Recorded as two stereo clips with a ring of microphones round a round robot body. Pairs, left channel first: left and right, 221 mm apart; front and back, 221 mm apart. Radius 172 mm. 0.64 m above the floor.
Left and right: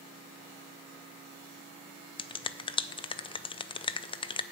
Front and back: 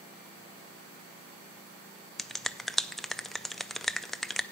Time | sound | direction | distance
2.2 | a finger snap | 90° left | 0.5 m